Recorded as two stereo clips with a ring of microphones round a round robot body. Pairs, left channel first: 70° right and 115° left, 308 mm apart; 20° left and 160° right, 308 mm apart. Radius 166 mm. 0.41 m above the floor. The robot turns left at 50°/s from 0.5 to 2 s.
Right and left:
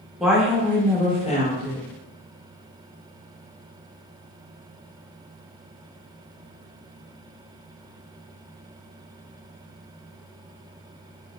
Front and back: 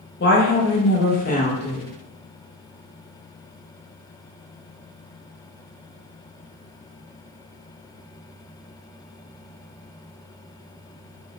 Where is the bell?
No bell in this recording.